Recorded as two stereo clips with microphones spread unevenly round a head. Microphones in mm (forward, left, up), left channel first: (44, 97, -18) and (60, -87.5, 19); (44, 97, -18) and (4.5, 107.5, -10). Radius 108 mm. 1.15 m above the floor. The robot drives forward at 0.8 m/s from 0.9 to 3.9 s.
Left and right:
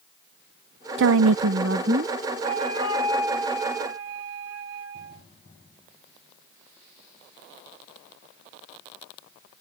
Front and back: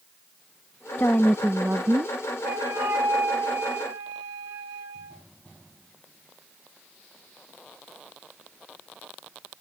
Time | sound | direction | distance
1.0 | a woman speaking | 60° right | ?
2.4 | a flute | 150° right | ?